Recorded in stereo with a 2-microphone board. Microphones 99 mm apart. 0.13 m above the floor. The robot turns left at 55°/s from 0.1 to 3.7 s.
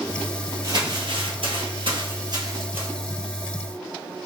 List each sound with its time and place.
0.6 s crumpling: 40° right (ahead or behind), 1.4 m; by 2.9 s 15° right (ahead or behind), 1.4 m